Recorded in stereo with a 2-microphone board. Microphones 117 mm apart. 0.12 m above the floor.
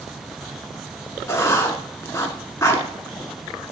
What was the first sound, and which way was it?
Writing, 25° left (ahead or behind).